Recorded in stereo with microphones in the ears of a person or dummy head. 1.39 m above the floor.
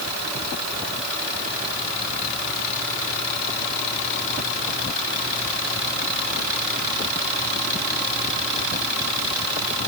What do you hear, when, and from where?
Only background noise.